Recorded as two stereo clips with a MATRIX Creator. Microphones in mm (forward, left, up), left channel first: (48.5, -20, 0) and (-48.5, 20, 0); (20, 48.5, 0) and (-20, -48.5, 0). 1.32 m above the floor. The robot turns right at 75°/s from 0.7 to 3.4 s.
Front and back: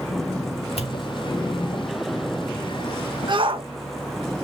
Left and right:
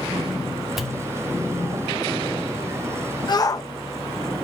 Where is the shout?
115° left, 1.7 m; by 3.7 s 120° left, 1.7 m.